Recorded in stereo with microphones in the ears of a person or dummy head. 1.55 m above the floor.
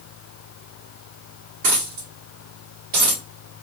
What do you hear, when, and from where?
1.6 s a dropped coin: 30° right (ahead or behind), 1.5 m